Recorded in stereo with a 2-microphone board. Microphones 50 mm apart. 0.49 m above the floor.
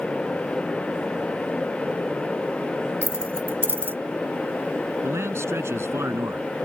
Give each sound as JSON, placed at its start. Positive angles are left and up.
{"t": 3.0, "sound": "keys jangling", "side_deg": -50}
{"t": 5.0, "sound": "a man speaking", "side_deg": -70}